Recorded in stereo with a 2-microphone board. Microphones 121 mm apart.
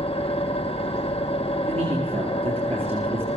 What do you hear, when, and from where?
0.0 s an engine running: 55° left (ahead or behind), 0.9 m
1.7 s a man speaking: 55° right (ahead or behind), 3.5 m